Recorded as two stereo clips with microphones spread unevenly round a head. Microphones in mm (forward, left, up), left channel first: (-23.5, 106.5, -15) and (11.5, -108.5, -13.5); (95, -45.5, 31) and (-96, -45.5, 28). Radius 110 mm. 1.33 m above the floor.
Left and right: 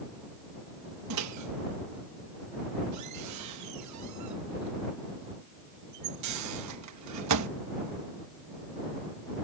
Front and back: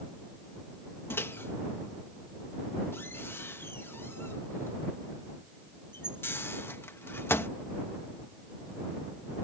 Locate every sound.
1.1 s a microwave: 80° right